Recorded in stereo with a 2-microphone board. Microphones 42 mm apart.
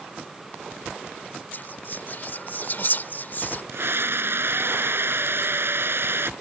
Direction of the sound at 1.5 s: 40° left (ahead or behind).